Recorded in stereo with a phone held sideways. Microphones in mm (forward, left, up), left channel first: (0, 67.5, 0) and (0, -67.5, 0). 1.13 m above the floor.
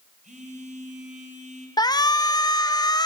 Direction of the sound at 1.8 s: 30° left (ahead or behind).